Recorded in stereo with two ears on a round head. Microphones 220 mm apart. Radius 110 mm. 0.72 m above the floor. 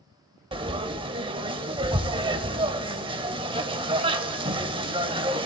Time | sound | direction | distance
0.5 | frying | 20° right (ahead or behind) | 0.5 m